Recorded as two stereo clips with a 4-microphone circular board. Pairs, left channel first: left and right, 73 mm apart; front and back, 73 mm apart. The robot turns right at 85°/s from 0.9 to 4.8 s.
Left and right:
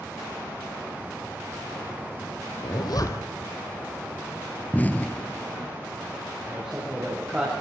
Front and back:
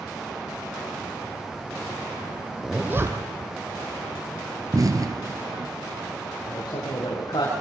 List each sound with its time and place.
2.6 s a zipper: 95° left, 3 m; by 3.5 s 165° left, 3 m
4.7 s an explosion: 150° left, 1.3 m; by 5.7 s 155° left, 1.3 m
6.5 s a man speaking: 15° right, 7 m